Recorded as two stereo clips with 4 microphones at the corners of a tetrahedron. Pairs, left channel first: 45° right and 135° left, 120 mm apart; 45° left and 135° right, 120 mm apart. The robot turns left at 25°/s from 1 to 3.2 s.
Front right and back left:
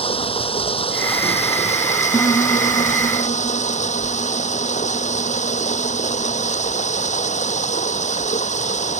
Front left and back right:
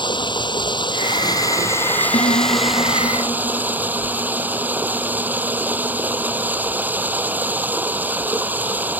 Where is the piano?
20° left; by 6.5 s 5° right.